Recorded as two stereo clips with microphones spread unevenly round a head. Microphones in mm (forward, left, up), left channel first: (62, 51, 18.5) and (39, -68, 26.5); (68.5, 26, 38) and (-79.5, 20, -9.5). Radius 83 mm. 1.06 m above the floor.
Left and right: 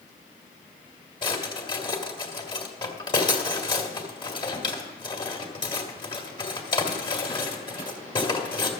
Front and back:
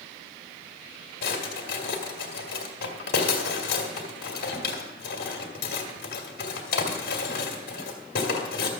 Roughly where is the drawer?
Ahead left.